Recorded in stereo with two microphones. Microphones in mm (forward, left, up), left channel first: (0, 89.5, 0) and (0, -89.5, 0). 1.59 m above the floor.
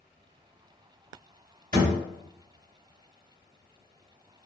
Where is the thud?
50° right (ahead or behind), 1.8 m.